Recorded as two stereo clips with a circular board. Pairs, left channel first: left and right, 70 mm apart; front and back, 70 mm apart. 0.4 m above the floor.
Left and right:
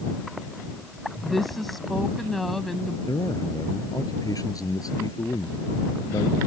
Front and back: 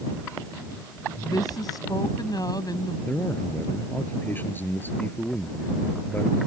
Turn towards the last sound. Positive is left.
turn(degrees=60)